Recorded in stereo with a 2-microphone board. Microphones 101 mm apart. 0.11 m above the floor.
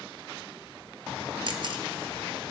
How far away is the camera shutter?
About 1.2 m.